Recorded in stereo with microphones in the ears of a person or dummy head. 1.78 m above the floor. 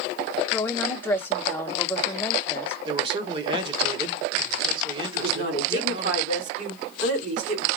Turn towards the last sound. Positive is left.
turn(degrees=-80)